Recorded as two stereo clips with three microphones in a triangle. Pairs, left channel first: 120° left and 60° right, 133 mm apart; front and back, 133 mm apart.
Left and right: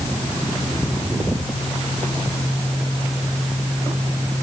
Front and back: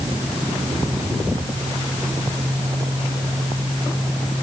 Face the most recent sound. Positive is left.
No sound to turn to.